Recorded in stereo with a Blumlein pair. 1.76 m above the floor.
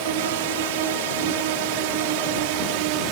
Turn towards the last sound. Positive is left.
turn(degrees=-45)